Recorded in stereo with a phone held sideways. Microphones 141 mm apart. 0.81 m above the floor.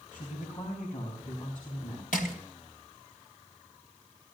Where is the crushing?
75° left (ahead or behind), 2.5 m.